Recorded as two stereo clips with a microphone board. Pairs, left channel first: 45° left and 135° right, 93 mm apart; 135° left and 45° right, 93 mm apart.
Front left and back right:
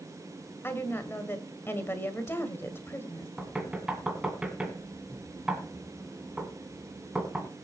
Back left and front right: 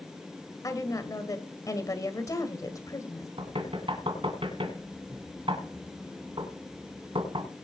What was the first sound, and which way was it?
A woman speaking, 100° left.